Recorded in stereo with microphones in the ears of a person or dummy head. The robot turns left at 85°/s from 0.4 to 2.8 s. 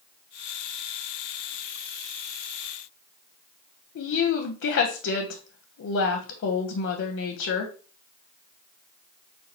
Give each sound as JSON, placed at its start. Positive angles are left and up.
{"t": 4.0, "sound": "a woman speaking", "side_deg": 60, "distance_m": 0.5}